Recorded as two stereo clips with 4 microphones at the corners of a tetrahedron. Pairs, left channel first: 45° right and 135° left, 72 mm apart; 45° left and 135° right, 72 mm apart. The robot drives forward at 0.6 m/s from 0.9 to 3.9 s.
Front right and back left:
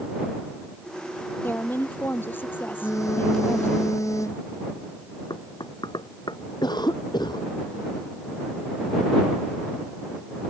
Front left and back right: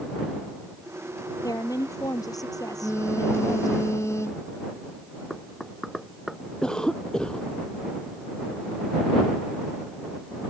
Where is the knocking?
45° right.